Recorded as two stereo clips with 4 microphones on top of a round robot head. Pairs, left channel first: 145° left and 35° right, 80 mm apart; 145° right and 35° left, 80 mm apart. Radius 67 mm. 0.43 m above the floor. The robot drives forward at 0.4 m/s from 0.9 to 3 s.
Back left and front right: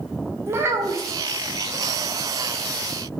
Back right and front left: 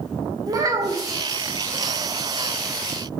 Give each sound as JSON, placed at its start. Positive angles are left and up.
{"t": 0.5, "sound": "a child speaking", "azimuth_deg": 10, "distance_m": 1.0}